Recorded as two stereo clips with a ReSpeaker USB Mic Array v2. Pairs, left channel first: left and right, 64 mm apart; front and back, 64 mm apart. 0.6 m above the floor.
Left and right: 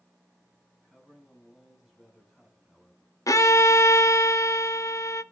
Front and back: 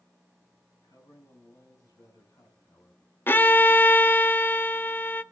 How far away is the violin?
About 0.5 m.